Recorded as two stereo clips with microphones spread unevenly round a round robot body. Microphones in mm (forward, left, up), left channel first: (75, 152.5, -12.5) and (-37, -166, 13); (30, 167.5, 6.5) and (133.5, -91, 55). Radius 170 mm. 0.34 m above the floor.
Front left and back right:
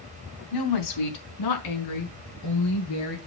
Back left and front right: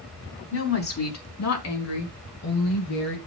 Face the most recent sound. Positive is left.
turn(degrees=115)